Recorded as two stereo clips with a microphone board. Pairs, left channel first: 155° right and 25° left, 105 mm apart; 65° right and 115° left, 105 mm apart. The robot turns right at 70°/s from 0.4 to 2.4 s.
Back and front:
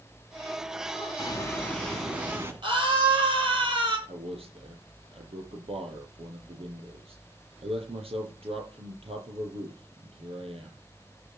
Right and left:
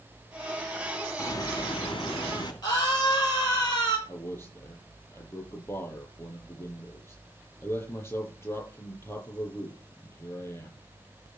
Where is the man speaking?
5° right, 8 m.